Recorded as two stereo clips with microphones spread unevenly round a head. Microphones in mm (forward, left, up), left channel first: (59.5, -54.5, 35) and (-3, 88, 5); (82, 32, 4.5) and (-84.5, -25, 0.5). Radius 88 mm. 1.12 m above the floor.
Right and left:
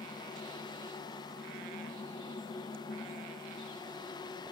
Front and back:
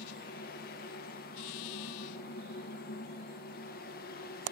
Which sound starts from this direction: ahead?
A fan, at 0.0 s.